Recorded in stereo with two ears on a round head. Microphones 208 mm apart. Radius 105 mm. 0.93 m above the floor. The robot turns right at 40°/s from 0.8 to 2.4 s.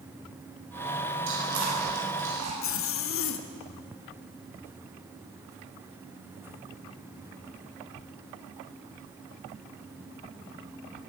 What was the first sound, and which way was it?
Chewing, 60° right (ahead or behind).